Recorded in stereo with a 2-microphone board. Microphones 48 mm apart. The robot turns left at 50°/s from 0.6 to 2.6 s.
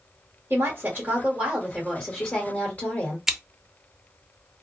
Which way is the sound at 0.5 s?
125° right.